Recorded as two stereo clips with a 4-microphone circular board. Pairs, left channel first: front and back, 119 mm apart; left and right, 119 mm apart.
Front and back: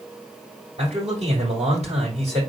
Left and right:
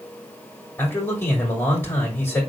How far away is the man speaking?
About 6 m.